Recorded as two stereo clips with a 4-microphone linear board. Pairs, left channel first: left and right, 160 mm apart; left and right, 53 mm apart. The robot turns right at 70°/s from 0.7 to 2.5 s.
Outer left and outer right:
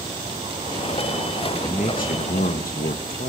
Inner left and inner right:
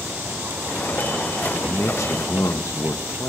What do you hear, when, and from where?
1.6 s a man speaking: 45° left, 0.9 m; by 3.3 s 105° left, 0.9 m